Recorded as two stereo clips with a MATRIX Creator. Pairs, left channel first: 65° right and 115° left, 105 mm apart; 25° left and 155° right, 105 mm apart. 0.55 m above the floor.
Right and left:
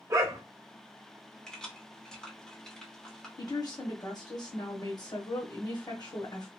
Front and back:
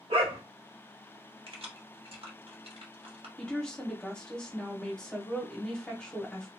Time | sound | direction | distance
0.1 | a dog barking | 175° left | 0.8 m
1.5 | keys jangling | 150° right | 0.9 m
3.4 | a woman speaking | 55° right | 1.1 m